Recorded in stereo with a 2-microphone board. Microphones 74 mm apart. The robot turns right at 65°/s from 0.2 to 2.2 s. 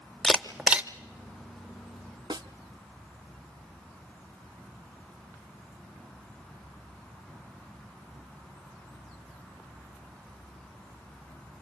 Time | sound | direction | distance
0.2 | a camera shutter | 15° left (ahead or behind) | 0.7 m
2.3 | a snare drum | 70° right (ahead or behind) | 0.7 m